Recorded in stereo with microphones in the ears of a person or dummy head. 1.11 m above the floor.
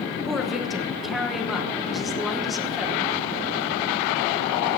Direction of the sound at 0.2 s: 5° right (ahead or behind).